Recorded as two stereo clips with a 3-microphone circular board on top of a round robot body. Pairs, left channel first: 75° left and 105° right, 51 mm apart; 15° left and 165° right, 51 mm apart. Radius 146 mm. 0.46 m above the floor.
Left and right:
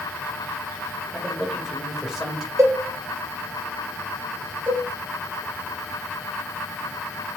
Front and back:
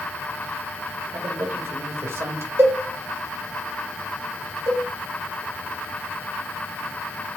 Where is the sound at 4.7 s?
160° right, 3.5 m.